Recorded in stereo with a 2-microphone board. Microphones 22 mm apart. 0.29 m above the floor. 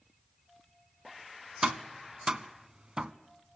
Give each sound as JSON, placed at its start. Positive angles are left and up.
{"t": 1.6, "sound": "tapping", "side_deg": -40, "distance_m": 0.6}